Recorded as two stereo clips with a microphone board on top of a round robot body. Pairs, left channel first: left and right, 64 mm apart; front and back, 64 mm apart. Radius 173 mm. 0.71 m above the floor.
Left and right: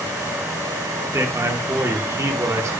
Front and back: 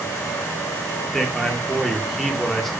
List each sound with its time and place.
1.1 s a man speaking: 85° right, 1.6 m